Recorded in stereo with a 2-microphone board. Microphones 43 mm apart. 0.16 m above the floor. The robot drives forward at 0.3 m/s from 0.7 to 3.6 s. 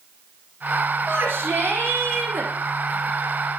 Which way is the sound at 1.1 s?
60° right (ahead or behind).